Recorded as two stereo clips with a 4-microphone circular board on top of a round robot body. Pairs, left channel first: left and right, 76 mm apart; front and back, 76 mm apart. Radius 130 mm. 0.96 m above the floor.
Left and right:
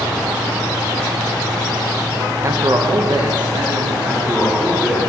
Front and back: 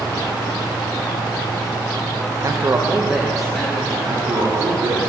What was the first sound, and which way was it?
A man speaking, 140° right.